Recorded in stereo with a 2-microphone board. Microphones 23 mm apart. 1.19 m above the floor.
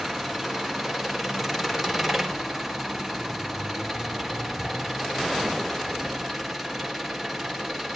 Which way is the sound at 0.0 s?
Centre (ahead or behind).